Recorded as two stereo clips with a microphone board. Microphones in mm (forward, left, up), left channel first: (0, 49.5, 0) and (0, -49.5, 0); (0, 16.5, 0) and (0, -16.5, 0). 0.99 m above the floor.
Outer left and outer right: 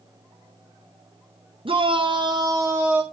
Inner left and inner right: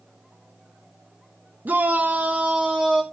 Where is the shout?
65° right (ahead or behind), 0.8 m; by 3.0 s 15° right (ahead or behind), 0.8 m.